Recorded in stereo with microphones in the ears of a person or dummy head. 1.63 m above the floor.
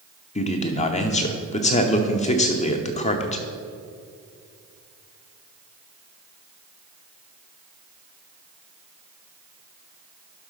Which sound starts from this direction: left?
A man speaking, at 0.3 s.